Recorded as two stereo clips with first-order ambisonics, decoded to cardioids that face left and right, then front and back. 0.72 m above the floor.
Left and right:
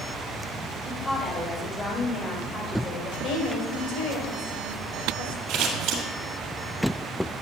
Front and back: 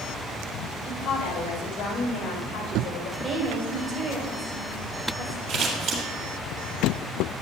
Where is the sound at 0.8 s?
15° left, 2 m; by 3.1 s 40° left, 4 m.